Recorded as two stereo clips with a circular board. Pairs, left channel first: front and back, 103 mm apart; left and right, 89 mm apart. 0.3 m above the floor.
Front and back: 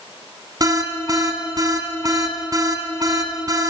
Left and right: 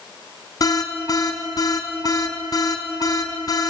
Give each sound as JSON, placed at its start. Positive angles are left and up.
{"t": 0.6, "sound": "an alarm", "azimuth_deg": 130, "distance_m": 3.0}